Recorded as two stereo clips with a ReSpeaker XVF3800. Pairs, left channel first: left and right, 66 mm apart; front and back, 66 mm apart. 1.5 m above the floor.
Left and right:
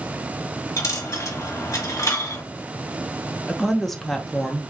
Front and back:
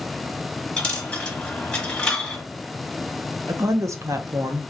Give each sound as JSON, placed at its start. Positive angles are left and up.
{"t": 0.8, "sound": "a dropped coin", "azimuth_deg": 75, "distance_m": 1.3}
{"t": 3.5, "sound": "a woman speaking", "azimuth_deg": 175, "distance_m": 0.5}